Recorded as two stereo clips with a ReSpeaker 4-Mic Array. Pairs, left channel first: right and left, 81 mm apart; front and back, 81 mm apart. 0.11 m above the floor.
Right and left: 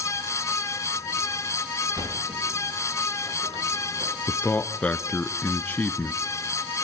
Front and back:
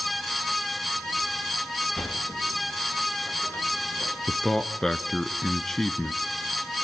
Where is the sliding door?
70° left, 5 m.